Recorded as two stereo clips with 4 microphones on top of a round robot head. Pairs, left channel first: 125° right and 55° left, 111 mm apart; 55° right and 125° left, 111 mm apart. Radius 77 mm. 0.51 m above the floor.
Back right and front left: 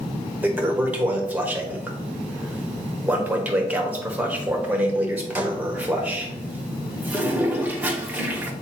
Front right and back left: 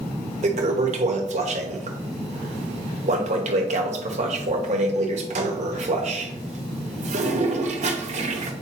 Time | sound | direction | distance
0.4 | a toilet flushing | 130° left | 1.1 m